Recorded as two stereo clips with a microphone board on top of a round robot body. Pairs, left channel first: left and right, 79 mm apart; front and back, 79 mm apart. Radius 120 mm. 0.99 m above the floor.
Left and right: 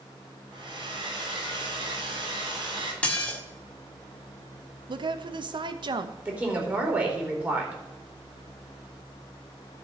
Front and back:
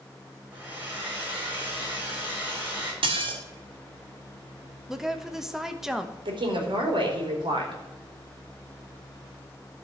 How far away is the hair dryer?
About 6.5 m.